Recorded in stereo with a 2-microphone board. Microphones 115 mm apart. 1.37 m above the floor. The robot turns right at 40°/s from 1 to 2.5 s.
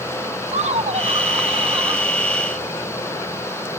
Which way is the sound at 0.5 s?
75° right.